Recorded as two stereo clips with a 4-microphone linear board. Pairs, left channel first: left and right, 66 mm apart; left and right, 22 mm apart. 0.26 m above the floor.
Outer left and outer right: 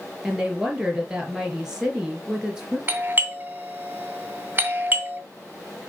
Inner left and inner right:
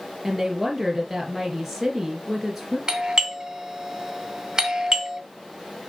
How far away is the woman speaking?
About 3.5 m.